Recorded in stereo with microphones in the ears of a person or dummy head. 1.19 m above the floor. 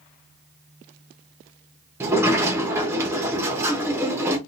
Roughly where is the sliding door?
Centre.